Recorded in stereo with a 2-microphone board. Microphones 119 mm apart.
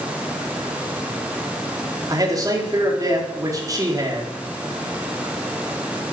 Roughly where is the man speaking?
Right.